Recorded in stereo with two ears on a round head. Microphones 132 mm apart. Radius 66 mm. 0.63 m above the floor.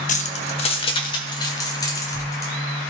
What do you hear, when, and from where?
0.1 s keys jangling: 55° left (ahead or behind), 0.9 m; by 2.5 s 20° left (ahead or behind), 2.5 m